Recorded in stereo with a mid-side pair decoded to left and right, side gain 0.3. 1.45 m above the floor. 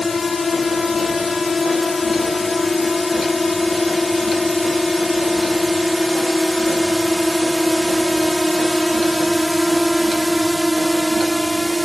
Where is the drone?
55° left; by 11.8 s 10° right.